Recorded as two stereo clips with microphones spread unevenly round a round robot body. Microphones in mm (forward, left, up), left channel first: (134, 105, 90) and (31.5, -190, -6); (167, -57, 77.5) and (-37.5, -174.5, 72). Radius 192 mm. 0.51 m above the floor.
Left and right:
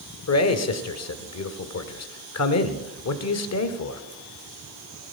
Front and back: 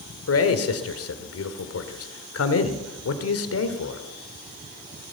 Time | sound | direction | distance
0.3 | a man speaking | 25° left | 1.6 m